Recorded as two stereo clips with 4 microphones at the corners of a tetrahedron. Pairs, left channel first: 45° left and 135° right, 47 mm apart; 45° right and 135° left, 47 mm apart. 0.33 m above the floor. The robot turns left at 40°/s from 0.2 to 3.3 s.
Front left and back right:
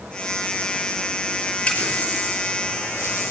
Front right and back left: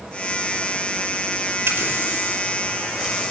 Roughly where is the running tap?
Left.